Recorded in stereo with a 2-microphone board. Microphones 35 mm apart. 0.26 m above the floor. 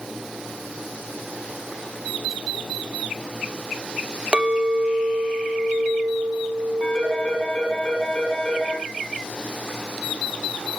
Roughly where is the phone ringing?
Left.